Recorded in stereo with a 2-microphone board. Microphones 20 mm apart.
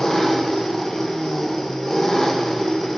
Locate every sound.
0.0 s an engine running: 20° left (ahead or behind), 0.9 m